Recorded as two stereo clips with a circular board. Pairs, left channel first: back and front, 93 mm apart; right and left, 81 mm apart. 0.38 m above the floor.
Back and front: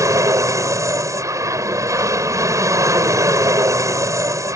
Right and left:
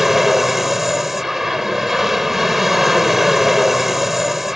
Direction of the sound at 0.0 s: 5° left.